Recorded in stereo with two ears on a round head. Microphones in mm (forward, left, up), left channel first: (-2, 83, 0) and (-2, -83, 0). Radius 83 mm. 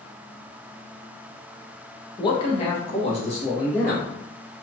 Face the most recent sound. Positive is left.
turn(degrees=35)  # may be behind; listen again after turning